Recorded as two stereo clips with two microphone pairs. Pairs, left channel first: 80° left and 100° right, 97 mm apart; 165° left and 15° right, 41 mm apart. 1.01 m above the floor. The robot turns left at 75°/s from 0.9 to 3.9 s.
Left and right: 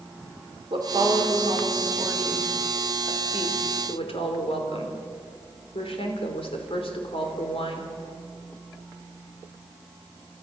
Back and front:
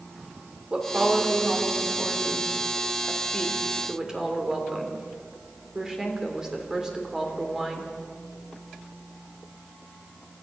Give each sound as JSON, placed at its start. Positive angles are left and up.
{"t": 0.7, "sound": "a woman speaking", "azimuth_deg": -70, "distance_m": 3.5}